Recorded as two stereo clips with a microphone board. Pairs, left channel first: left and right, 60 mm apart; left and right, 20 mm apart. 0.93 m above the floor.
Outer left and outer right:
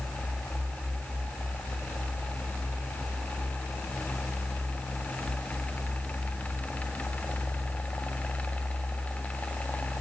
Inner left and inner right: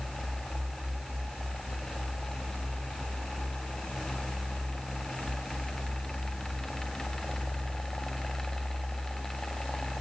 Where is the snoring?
No snoring in this recording.